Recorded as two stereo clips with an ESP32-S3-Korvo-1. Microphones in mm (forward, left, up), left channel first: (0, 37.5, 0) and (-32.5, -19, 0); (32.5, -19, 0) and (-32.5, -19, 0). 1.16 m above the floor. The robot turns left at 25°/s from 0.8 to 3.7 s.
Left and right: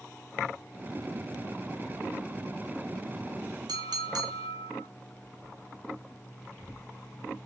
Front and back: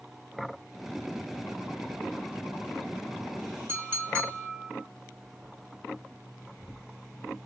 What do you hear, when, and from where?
3.7 s a clink: 125° right, 0.6 m